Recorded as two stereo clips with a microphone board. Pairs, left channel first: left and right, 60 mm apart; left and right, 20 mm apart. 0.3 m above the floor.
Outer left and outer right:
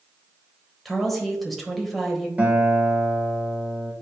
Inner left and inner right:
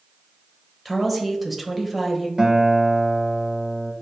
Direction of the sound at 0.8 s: Centre (ahead or behind).